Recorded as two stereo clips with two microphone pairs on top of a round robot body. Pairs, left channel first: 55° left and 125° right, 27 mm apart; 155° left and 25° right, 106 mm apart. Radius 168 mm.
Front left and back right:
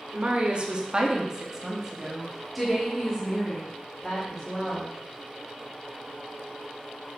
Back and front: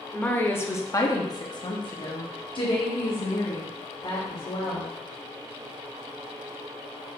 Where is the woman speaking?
145° right, 1.4 m; by 4.9 s 125° left, 3 m.